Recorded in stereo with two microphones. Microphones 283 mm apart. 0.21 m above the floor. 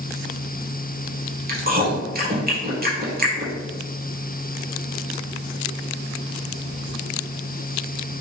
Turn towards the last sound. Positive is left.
turn(degrees=-30)  # may be behind; listen again after turning